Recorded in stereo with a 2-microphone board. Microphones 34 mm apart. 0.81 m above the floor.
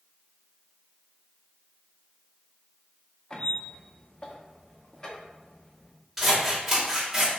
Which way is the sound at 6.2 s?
10° right (ahead or behind).